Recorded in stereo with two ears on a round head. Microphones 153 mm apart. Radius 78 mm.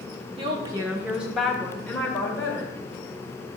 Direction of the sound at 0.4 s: 30° right (ahead or behind).